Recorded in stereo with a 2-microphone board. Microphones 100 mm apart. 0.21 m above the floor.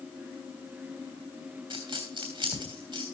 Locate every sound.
1.7 s a dropped coin: 55° right (ahead or behind), 2.5 m